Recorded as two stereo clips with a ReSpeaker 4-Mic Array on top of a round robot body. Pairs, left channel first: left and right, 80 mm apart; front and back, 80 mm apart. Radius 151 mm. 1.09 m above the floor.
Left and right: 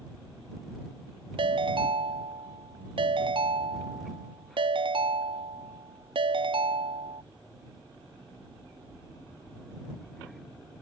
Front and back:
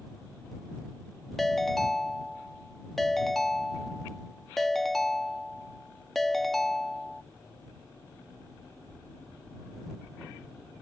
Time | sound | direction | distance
1.4 | a ringtone | 90° right | ?